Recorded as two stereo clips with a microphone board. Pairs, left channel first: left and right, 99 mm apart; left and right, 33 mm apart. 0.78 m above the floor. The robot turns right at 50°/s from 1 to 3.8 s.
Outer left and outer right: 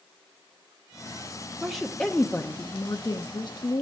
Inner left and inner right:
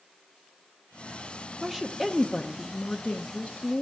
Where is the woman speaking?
5° right, 0.8 m; by 3.8 s 105° left, 0.8 m.